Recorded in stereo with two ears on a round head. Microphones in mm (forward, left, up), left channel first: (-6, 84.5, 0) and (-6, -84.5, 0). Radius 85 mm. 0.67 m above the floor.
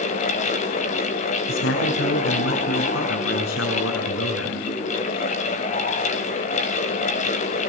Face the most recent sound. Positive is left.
turn(degrees=80)